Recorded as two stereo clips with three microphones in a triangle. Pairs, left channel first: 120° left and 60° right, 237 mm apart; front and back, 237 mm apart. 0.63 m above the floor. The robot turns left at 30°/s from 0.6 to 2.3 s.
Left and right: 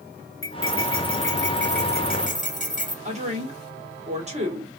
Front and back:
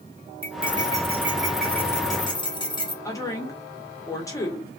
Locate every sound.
0.4 s cutlery clinking: 115° left, 0.7 m; by 3.0 s 65° left, 0.7 m
3.0 s a woman speaking: 60° right, 1.3 m